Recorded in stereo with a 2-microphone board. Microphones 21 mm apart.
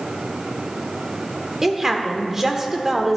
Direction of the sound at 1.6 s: 15° right (ahead or behind).